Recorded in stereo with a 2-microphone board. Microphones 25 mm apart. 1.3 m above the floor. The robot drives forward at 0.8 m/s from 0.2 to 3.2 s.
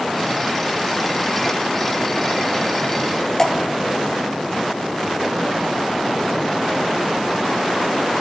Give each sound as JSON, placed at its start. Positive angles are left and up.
{"t": 3.4, "sound": "dripping", "side_deg": 25, "distance_m": 0.8}